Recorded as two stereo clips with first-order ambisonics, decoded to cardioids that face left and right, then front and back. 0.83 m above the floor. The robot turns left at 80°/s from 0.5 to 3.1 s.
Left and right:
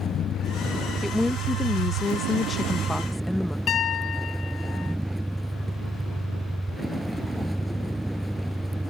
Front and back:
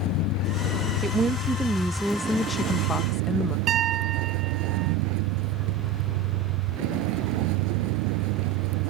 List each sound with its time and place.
0.0 s a vehicle: 30° left; by 8.9 s straight behind
1.0 s a woman speaking: 175° left; by 3.6 s 10° left
3.7 s a piano: 135° left